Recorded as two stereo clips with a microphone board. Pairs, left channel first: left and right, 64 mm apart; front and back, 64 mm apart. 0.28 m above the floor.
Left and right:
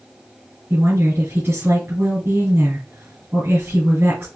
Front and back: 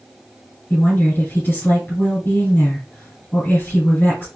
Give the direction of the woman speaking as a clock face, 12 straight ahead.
2 o'clock.